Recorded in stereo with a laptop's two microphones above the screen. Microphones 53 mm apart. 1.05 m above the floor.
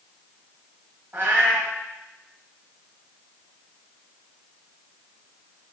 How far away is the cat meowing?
About 1.1 m.